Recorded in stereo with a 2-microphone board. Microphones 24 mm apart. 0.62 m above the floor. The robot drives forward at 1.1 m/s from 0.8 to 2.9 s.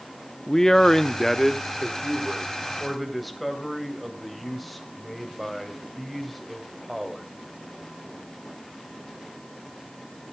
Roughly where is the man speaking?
Left.